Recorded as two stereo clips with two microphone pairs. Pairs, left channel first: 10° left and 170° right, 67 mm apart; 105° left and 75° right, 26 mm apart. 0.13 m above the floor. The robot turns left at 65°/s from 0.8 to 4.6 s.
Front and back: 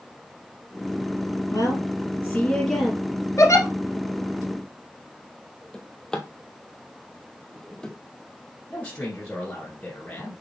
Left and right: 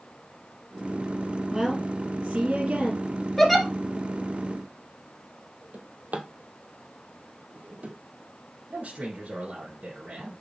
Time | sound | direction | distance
1.5 | a woman speaking | 5° left | 3.5 m
3.4 | a giggle | 30° left | 1.9 m
5.7 | a drawer | 70° right | 1.1 m
8.7 | a man speaking | 50° right | 2 m